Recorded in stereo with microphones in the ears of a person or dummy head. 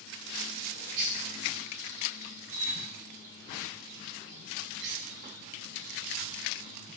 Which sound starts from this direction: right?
A bird, at 0.5 s.